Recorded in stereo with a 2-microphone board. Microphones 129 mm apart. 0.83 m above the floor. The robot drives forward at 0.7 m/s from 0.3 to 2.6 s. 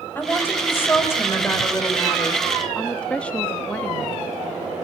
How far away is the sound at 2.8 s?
About 0.8 m.